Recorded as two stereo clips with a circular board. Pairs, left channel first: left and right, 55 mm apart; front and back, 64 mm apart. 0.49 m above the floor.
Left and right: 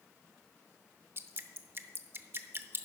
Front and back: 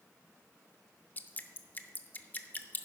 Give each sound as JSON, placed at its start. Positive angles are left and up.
{"t": 1.2, "sound": "dripping", "azimuth_deg": -55, "distance_m": 0.7}